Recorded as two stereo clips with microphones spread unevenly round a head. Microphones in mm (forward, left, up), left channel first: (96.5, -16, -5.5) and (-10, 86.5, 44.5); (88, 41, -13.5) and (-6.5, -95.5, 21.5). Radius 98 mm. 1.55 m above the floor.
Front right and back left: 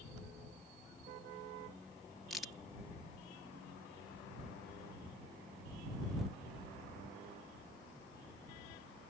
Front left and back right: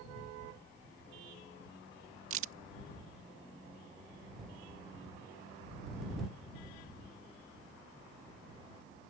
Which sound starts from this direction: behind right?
A crack, at 2.3 s.